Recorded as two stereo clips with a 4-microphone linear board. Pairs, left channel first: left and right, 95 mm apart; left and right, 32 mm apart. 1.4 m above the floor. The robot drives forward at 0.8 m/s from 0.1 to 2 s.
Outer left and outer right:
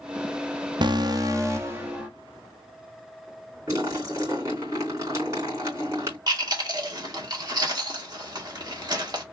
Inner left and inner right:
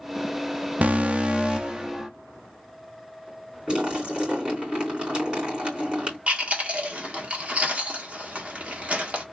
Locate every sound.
0.8 s an alarm: 55° right (ahead or behind), 0.7 m; by 2.1 s 25° right (ahead or behind), 1.4 m
3.7 s a splash: 30° right (ahead or behind), 3.5 m
6.3 s chewing: 50° right (ahead or behind), 1.5 m